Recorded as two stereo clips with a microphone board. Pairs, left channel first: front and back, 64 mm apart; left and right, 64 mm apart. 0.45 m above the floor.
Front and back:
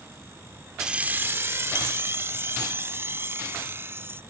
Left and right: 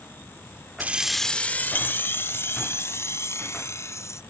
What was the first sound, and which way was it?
Keys jangling, 110° right.